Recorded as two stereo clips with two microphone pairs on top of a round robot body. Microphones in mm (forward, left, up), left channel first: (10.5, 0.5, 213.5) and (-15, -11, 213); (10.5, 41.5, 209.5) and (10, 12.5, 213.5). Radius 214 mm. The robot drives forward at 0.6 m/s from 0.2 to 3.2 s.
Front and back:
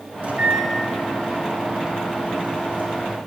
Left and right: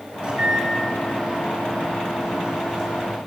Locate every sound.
0.2 s a microwave: 135° right, 2.5 m; by 3.2 s 155° right, 4 m